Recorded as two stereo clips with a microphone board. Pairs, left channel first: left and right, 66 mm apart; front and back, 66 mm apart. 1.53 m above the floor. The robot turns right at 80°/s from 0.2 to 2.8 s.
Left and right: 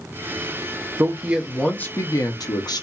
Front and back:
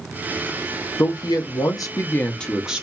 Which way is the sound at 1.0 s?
40° right.